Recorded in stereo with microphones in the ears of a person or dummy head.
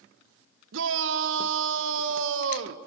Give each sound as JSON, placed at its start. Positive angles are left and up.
{"t": 0.7, "sound": "a shout", "side_deg": -75, "distance_m": 1.3}